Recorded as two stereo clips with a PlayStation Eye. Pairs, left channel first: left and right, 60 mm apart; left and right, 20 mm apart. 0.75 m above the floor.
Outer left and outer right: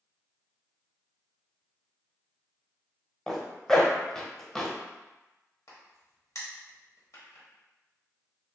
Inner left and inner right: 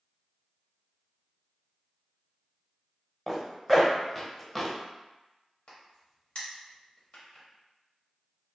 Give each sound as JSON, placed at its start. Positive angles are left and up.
{"t": 3.3, "sound": "a zipper", "side_deg": 10, "distance_m": 0.7}
{"t": 5.7, "sound": "a crack", "side_deg": 60, "distance_m": 1.1}